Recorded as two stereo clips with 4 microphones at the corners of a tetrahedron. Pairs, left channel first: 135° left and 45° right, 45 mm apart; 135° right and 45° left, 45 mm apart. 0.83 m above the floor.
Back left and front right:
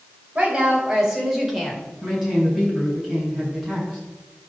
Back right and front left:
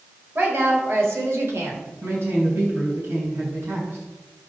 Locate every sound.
0.3 s a woman speaking: 15° left, 4 m; by 1.8 s 50° left, 3 m
2.0 s a man speaking: 35° left, 6.5 m